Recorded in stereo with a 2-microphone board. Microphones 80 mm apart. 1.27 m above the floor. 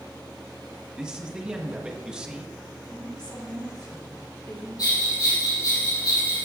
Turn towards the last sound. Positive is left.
turn(degrees=55)  # may be behind; listen again after turning